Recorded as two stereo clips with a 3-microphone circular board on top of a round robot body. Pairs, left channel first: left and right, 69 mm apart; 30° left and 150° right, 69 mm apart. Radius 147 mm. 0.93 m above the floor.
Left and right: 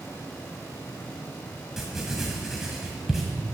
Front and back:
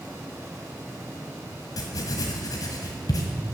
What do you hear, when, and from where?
1.8 s writing: 5° right, 1.6 m